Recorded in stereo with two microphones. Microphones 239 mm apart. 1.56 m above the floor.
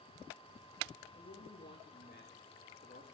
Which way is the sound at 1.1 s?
40° left (ahead or behind).